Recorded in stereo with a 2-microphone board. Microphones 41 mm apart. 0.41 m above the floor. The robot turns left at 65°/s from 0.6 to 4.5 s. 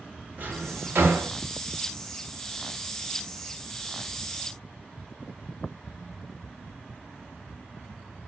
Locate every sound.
0.4 s a drawer: 45° right (ahead or behind), 0.8 m; by 1.3 s 70° right (ahead or behind), 0.8 m